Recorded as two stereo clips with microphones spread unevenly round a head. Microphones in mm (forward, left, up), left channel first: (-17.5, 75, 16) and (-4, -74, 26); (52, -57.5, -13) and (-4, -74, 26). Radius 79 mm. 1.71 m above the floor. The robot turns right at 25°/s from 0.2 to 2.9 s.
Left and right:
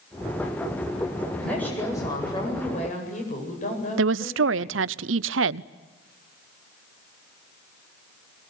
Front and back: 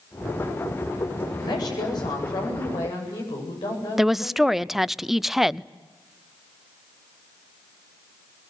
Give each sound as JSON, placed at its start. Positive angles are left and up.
{"t": 1.4, "sound": "a woman speaking", "azimuth_deg": 10, "distance_m": 8.5}
{"t": 4.0, "sound": "a woman speaking", "azimuth_deg": -80, "distance_m": 0.7}